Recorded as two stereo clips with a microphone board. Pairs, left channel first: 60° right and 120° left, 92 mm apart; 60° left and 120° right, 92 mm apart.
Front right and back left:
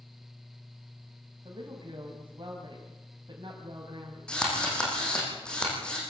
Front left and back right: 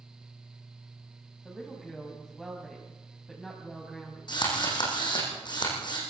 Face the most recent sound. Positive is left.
turn(degrees=20)